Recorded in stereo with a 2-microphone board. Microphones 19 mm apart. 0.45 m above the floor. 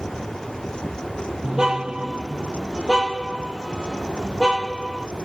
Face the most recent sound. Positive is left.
turn(degrees=-45)  # may be behind; listen again after turning